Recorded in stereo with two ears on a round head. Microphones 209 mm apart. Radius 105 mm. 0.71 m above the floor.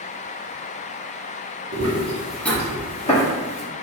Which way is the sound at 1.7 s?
35° right (ahead or behind).